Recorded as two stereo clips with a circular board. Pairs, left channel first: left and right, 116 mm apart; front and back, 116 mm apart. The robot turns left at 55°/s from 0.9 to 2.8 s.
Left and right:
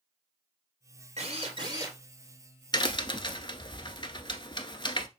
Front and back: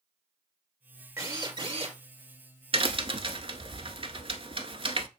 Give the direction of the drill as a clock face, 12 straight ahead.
4 o'clock.